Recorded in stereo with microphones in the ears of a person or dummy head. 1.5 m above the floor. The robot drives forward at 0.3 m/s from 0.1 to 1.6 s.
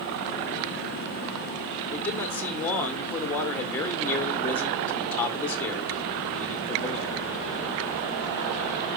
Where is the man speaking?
10° left (ahead or behind), 1.6 m.